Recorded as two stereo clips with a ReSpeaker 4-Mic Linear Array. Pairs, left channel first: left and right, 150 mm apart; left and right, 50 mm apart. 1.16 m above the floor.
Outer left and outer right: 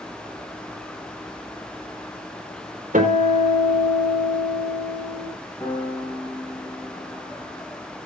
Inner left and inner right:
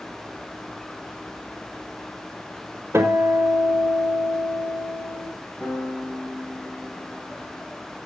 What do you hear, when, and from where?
2.9 s a guitar: 65° right (ahead or behind), 4.5 m
5.6 s a piano: 15° left (ahead or behind), 5 m